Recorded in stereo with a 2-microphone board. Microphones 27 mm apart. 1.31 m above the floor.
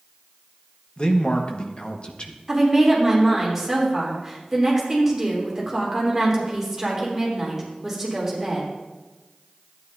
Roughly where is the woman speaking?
Centre.